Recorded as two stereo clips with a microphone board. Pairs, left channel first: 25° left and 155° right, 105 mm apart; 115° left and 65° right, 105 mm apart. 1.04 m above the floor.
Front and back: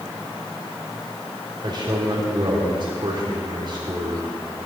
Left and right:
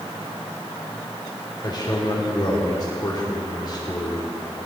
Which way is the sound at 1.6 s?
160° left.